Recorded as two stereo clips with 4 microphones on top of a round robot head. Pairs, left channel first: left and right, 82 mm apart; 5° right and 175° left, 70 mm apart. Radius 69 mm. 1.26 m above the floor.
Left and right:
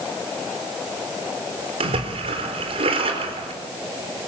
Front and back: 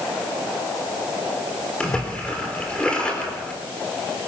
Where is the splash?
85° right, 4 m.